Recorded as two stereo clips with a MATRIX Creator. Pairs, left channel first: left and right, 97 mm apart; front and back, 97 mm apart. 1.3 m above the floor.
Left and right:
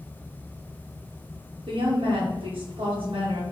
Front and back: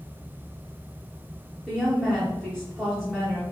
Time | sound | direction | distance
1.7 | a woman speaking | 85° right | 0.7 m